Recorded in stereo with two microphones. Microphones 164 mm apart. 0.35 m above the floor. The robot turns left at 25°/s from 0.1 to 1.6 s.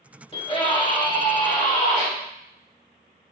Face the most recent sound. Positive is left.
turn(degrees=100)